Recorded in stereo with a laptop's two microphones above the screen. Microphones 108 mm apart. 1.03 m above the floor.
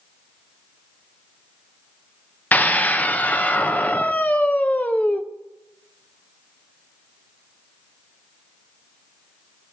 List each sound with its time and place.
2.5 s a scream: 15° left (ahead or behind), 0.7 m